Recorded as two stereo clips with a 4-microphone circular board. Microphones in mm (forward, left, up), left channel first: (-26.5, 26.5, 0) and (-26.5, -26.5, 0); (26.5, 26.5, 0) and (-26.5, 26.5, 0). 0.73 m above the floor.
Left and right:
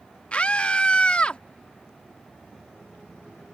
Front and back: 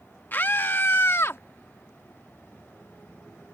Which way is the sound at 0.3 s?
35° left.